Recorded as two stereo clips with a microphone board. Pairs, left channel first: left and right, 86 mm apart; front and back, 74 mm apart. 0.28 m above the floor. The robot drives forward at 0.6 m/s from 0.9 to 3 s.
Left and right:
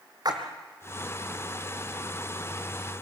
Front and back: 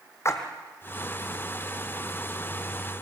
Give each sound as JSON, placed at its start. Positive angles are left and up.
{"t": 0.2, "sound": "a splash", "azimuth_deg": -50, "distance_m": 2.5}